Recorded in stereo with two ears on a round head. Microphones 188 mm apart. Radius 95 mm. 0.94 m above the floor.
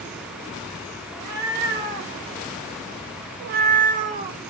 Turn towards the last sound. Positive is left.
turn(degrees=-30)  # may be behind; listen again after turning